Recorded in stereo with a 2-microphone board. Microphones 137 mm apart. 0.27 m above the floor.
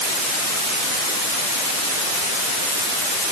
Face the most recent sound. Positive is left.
No sound to turn to.